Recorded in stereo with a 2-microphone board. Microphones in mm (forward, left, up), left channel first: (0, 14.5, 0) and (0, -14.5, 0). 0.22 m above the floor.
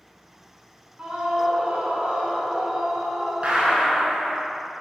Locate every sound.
1.0 s a scream: 35° right (ahead or behind), 2.5 m
3.4 s a gunshot: 55° right (ahead or behind), 3 m